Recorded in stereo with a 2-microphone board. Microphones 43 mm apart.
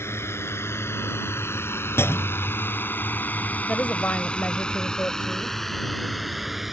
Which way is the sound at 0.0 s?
80° left.